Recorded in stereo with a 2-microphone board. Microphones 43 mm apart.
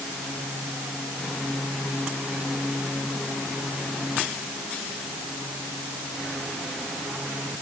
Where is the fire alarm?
I don't hear a fire alarm.